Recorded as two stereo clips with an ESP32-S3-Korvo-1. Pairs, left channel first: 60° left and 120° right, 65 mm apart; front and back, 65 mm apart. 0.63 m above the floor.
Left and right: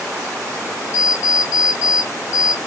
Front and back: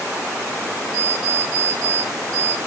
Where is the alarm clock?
160° left, 1.3 m.